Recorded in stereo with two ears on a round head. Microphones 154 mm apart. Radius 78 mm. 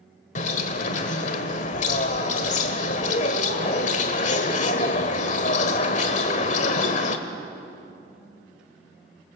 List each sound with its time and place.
0.3 s a bird: 40° left (ahead or behind), 1.3 m